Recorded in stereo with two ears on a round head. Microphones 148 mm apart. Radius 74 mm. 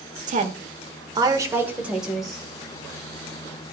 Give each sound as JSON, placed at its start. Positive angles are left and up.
{"t": 0.3, "sound": "a woman speaking", "side_deg": -50, "distance_m": 1.2}